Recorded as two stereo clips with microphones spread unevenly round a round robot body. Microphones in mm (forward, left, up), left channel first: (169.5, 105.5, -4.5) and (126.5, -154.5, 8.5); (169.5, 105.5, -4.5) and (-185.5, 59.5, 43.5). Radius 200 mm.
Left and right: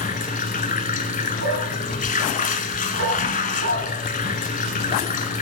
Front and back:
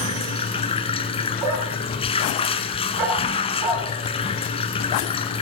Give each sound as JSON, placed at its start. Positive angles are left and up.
{"t": 0.0, "sound": "running water", "azimuth_deg": 80, "distance_m": 1.0}
{"t": 1.4, "sound": "a dog barking", "azimuth_deg": -155, "distance_m": 2.5}